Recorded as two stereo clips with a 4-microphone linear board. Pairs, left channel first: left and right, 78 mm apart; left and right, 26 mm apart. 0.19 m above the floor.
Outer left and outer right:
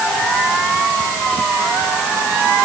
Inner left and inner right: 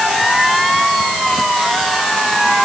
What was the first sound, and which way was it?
Only background noise.